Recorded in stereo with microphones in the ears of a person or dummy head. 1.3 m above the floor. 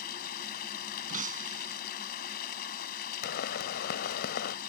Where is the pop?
60° left (ahead or behind).